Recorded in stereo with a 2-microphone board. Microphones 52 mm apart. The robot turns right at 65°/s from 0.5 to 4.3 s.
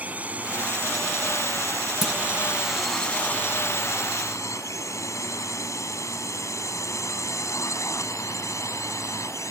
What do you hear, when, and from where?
0.0 s a drone: 30° right (ahead or behind); by 9.5 s 80° left
2.0 s a clunk: 5° right (ahead or behind); by 2.2 s centre (ahead or behind)